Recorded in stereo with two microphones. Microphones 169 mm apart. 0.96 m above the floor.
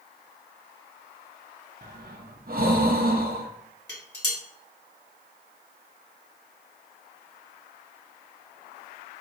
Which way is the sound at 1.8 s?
60° right (ahead or behind).